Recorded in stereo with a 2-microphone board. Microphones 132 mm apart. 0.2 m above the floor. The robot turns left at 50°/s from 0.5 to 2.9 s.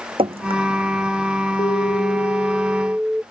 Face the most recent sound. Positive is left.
turn(degrees=-10)